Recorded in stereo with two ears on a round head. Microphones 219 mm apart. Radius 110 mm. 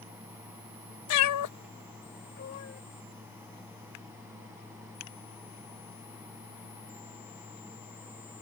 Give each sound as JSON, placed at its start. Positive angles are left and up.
{"t": 1.1, "sound": "a cat meowing", "side_deg": 65}